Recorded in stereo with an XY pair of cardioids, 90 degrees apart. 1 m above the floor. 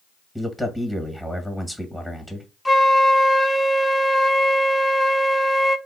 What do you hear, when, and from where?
0.3 s a man speaking: 10° right, 1.3 m
2.6 s a flute: 10° left, 0.6 m